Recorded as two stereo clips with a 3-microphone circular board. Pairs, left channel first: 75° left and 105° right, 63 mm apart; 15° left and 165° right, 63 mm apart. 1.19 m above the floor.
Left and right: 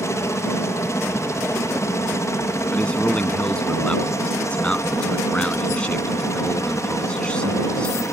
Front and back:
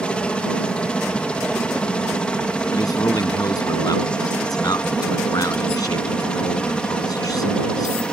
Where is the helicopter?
85° left.